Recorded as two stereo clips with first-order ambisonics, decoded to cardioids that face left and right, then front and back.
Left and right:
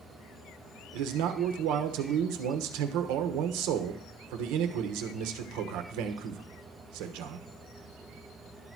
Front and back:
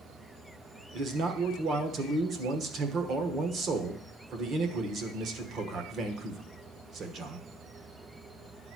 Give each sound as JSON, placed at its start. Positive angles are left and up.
{"t": 0.9, "sound": "a man speaking", "azimuth_deg": -120, "distance_m": 1.1}